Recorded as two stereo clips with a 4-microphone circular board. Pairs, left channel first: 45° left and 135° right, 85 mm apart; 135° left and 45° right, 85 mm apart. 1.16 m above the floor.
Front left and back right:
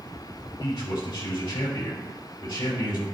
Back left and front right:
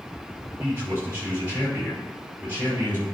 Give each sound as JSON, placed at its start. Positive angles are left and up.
{"t": 0.6, "sound": "a man speaking", "azimuth_deg": 20, "distance_m": 4.5}